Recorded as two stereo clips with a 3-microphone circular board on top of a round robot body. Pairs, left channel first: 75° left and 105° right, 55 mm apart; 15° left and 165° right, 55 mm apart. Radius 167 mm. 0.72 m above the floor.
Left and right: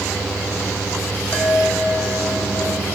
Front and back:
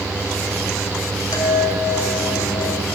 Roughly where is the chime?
Ahead.